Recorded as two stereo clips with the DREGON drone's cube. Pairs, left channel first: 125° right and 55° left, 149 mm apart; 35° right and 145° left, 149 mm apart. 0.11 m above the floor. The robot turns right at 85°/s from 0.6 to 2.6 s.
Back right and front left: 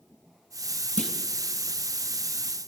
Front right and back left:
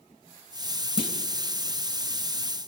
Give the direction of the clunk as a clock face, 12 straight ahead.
3 o'clock.